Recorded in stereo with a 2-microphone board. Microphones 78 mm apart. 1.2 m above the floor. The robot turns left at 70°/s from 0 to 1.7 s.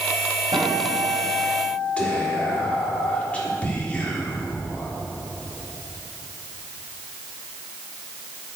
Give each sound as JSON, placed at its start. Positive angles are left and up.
{"t": 0.5, "sound": "a guitar", "azimuth_deg": -75, "distance_m": 4.5}
{"t": 2.0, "sound": "whispering", "side_deg": 20, "distance_m": 3.5}